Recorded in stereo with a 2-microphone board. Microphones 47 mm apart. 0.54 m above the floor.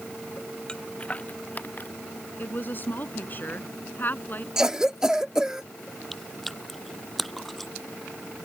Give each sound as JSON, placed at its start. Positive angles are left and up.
{"t": 0.7, "sound": "footsteps", "side_deg": 15}
{"t": 2.4, "sound": "a woman speaking", "side_deg": 45}
{"t": 4.6, "sound": "a cough", "side_deg": -10}
{"t": 6.1, "sound": "chewing", "side_deg": 0}